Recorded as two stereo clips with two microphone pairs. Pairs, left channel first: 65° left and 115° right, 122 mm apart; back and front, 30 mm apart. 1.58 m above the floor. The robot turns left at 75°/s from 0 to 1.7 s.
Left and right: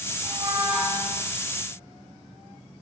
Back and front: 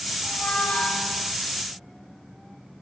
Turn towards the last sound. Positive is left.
turn(degrees=90)